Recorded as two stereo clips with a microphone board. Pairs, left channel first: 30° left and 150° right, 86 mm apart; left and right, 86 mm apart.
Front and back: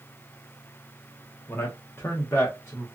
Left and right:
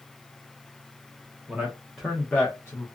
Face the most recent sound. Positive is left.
turn(degrees=65)